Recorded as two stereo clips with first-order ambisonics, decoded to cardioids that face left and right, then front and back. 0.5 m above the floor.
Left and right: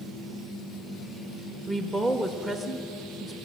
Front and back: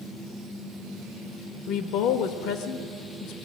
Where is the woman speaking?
Straight ahead, 1.3 m.